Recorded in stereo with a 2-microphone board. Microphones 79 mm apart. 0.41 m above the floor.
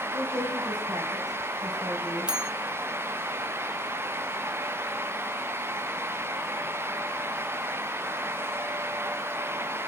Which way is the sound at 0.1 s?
60° right (ahead or behind).